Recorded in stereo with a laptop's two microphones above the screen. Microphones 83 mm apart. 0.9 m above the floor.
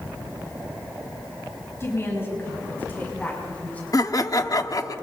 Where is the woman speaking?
35° left (ahead or behind), 5 m; by 3.8 s 20° left (ahead or behind), 6.5 m.